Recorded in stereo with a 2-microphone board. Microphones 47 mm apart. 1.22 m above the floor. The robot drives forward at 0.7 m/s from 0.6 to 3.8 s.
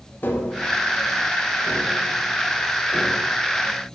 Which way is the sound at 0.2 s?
40° left (ahead or behind).